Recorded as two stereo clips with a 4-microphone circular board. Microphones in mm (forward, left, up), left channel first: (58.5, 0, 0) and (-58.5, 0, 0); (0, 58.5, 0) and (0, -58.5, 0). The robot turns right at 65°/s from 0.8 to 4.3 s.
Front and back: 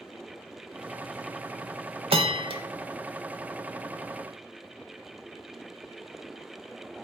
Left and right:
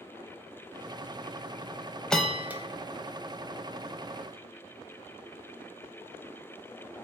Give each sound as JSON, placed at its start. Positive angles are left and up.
{"t": 2.1, "sound": "a bell", "azimuth_deg": 170, "distance_m": 0.5}